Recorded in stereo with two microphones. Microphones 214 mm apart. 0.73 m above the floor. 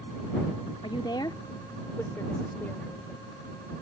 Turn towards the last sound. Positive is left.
turn(degrees=5)  # may be behind; listen again after turning